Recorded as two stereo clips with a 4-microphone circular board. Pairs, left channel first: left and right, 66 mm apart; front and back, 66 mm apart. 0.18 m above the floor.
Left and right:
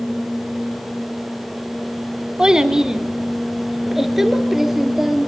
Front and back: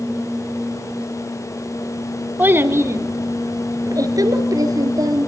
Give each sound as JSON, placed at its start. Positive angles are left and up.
{"t": 2.4, "sound": "a child speaking", "azimuth_deg": -155, "distance_m": 0.8}